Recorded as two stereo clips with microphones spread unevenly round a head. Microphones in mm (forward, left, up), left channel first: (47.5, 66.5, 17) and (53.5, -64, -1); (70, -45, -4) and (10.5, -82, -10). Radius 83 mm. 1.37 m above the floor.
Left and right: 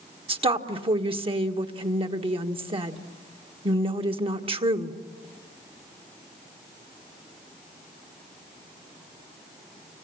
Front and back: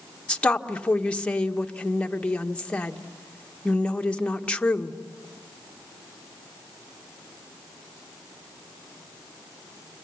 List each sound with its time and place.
0.3 s a woman speaking: 40° right, 1.5 m